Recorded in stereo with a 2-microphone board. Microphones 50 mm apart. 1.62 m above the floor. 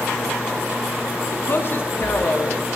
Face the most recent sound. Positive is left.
turn(degrees=45)  # may be behind; listen again after turning